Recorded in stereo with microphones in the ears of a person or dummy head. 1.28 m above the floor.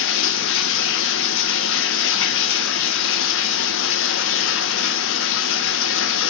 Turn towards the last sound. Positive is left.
turn(degrees=60)  # may be behind; listen again after turning